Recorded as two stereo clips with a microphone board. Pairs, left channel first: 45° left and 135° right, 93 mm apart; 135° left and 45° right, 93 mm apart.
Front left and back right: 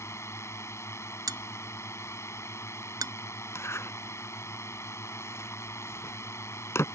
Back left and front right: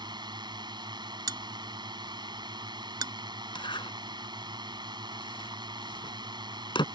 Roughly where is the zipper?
Left.